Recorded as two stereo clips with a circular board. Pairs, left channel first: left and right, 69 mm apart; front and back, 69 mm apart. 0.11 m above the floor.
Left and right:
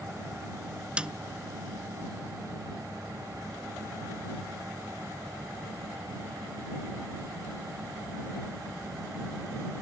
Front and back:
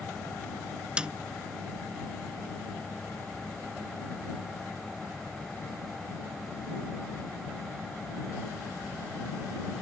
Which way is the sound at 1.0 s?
135° right.